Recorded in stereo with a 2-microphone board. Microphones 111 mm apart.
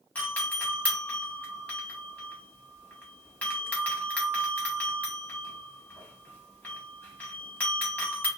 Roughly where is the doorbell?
Centre.